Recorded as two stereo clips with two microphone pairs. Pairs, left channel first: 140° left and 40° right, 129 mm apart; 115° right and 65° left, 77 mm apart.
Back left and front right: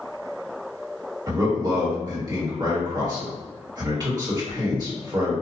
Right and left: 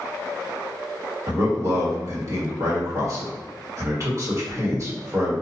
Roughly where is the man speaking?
Ahead.